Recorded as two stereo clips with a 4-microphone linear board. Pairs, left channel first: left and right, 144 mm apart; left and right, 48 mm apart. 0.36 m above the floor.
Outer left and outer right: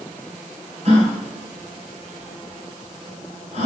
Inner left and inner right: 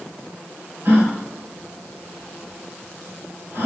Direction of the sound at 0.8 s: 50° right (ahead or behind).